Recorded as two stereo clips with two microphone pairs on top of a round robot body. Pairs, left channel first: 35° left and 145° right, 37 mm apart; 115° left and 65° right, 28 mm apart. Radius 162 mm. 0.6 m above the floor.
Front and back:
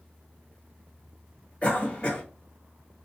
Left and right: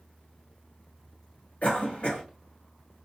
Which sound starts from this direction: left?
A cough, at 1.6 s.